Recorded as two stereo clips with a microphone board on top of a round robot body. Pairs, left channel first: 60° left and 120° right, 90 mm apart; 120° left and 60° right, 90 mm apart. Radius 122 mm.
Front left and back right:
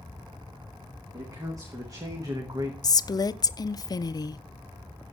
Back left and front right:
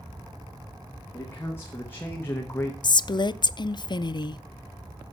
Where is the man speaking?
175° right, 2.0 m.